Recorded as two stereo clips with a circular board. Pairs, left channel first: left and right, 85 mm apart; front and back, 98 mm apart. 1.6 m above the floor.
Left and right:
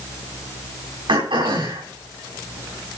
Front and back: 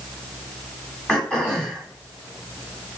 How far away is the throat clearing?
About 9 m.